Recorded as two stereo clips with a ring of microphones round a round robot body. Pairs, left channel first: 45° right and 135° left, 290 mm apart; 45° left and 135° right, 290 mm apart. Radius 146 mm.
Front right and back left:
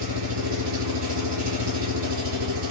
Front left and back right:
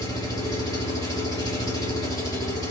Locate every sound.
0.0 s an engine running: 120° left, 1.0 m